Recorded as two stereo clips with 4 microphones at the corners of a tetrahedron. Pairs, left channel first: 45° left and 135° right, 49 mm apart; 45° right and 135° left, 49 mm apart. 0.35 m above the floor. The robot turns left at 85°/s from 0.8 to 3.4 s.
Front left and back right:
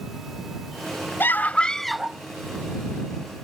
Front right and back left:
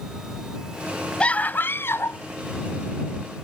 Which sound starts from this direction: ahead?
A scream, at 1.2 s.